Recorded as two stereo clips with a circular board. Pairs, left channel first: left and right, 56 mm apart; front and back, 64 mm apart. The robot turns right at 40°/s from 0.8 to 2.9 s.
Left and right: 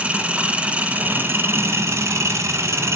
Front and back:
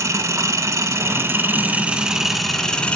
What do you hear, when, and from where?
0.0 s an engine running: 155° right, 0.9 m; by 3.0 s 70° right, 0.9 m